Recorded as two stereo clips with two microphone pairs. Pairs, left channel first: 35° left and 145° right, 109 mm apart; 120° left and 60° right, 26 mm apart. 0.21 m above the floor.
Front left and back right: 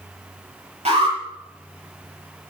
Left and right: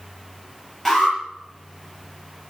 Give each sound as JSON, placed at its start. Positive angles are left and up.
{"t": 0.8, "sound": "an alarm", "azimuth_deg": -150, "distance_m": 7.0}